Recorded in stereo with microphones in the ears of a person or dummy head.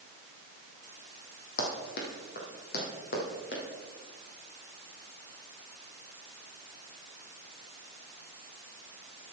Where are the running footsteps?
55° left (ahead or behind), 2.5 m.